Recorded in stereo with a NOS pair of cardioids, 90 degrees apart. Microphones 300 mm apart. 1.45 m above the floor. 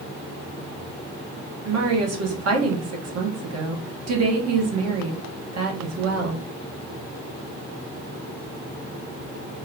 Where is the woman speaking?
55° right, 1.4 m.